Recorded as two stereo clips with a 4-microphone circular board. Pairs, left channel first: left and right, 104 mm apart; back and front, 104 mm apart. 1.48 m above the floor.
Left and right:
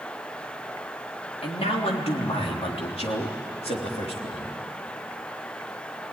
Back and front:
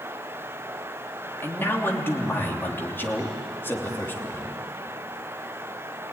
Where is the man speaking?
110° left, 3 m.